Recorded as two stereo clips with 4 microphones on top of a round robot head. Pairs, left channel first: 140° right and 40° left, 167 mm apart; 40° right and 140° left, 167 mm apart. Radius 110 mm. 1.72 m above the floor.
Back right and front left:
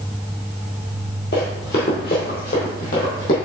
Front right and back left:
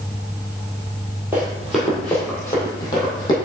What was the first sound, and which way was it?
Running footsteps, 140° right.